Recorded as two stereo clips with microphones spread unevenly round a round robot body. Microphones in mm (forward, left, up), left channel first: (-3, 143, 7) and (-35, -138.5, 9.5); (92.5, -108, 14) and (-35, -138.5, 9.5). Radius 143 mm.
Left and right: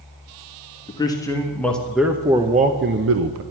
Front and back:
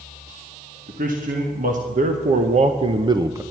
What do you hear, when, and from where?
0.9 s a man speaking: 160° left, 1.6 m; by 3.4 s 100° right, 0.8 m